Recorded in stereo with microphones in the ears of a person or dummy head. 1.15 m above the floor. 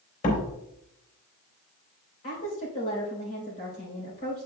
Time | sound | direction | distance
0.2 | a door slam | 40° left (ahead or behind) | 3 m
2.2 | a woman speaking | 40° left (ahead or behind) | 4 m